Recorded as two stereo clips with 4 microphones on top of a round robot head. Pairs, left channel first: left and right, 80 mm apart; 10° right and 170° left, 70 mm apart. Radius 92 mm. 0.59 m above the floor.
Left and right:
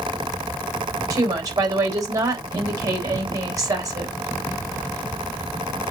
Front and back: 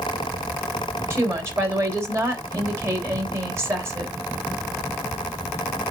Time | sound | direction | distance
1.1 | a woman speaking | 135° right | 3.5 m